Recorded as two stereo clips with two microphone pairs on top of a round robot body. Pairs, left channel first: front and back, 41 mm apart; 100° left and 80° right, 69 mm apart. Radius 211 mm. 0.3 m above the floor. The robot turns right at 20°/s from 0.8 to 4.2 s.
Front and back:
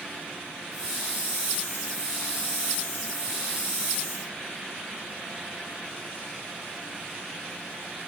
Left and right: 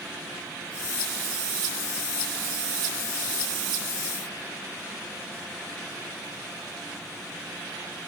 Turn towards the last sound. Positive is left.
No sound to turn to.